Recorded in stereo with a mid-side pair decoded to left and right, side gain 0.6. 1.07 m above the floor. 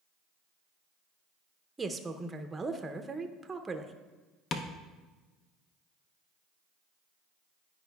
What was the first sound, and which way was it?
A woman speaking, 20° right.